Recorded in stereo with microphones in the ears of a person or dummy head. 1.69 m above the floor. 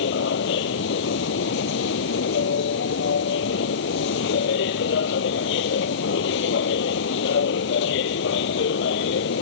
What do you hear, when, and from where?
0.0 s a machine running: 65° left (ahead or behind)